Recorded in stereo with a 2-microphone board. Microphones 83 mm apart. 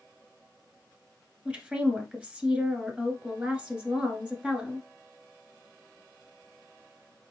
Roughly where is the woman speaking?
Centre.